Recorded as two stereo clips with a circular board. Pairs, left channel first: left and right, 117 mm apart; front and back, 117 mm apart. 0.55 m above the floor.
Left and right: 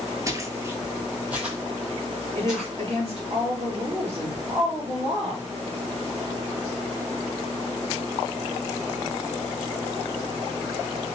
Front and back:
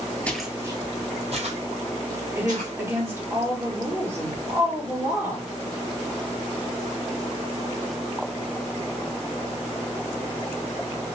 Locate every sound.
0.3 s footsteps: 65° right, 0.5 m; by 2.7 s 175° right, 2 m
2.4 s a woman speaking: 110° right, 1.6 m